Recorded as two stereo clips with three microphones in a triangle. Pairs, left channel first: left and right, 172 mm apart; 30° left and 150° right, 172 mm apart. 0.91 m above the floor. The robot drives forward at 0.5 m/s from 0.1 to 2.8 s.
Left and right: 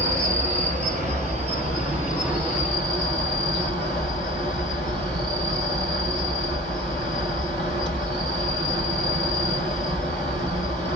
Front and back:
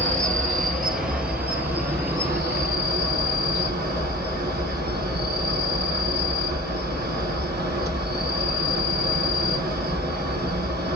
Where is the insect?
120° right, 1.5 m; by 11.0 s 150° right, 2.5 m.